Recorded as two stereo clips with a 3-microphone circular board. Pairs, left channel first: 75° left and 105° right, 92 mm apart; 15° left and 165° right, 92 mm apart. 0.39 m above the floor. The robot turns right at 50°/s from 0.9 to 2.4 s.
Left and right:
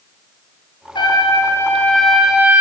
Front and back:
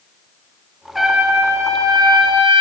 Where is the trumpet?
105° left, 6 m; by 2.6 s straight behind, 6 m.